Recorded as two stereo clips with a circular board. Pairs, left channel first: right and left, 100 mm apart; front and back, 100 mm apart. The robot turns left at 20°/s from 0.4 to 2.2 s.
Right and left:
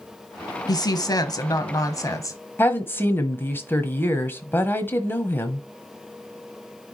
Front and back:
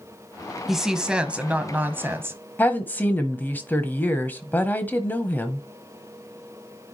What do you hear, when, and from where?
0.7 s a woman speaking: 95° right, 1.2 m; by 2.4 s 125° right, 1.2 m
2.6 s a woman speaking: 50° right, 1.1 m